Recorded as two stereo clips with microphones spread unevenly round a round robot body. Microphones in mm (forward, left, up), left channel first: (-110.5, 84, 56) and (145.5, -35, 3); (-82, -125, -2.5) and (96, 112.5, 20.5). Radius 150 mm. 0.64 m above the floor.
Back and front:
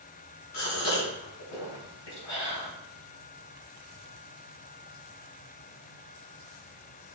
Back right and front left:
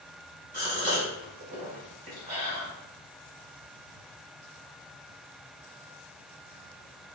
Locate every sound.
0.5 s a gasp: 115° left, 3.5 m